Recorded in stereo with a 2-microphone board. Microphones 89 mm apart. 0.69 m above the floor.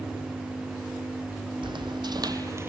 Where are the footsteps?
65° right (ahead or behind), 1.6 m; by 2.7 s 25° right (ahead or behind), 0.8 m.